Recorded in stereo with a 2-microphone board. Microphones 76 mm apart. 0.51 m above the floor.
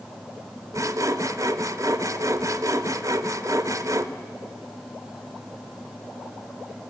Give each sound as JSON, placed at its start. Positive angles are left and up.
{"t": 0.7, "sound": "sawing", "side_deg": -45, "distance_m": 0.9}